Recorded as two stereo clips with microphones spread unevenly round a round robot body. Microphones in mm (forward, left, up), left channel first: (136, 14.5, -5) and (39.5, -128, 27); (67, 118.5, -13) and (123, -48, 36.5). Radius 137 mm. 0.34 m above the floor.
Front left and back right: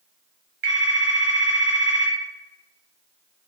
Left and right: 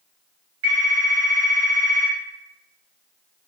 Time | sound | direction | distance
0.6 | a phone ringing | 115° right | 1.5 m